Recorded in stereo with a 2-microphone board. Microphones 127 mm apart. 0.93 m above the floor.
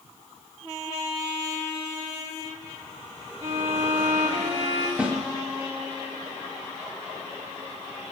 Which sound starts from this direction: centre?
A snare drum, at 5.0 s.